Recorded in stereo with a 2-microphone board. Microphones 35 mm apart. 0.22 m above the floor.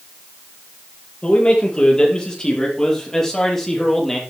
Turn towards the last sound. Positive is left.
turn(degrees=10)  # may be behind; listen again after turning